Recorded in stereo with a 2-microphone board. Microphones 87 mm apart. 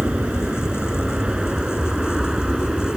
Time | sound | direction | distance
0.0 | an aircraft | 10° right (ahead or behind) | ?